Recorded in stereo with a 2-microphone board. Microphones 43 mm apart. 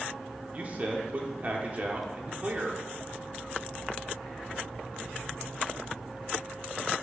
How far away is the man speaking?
About 1.2 m.